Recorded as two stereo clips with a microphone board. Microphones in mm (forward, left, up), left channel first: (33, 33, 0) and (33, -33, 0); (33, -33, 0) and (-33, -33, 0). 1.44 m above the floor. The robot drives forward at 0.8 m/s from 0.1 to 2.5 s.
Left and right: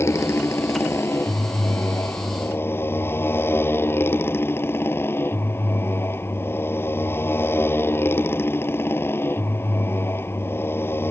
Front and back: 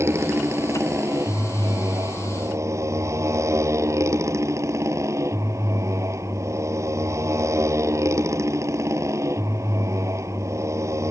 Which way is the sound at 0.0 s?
135° left.